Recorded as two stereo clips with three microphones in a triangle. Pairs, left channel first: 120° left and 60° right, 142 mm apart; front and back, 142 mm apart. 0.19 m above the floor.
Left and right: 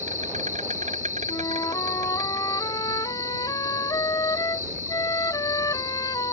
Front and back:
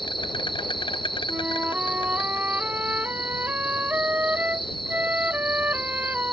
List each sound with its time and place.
0.0 s an insect: 50° right
1.3 s a flute: 120° left